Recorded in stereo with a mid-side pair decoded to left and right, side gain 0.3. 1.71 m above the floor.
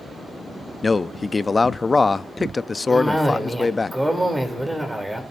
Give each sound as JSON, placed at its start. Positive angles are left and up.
{"t": 0.8, "sound": "a man speaking", "azimuth_deg": 40, "distance_m": 0.6}
{"t": 2.9, "sound": "a cough", "azimuth_deg": -5, "distance_m": 3.0}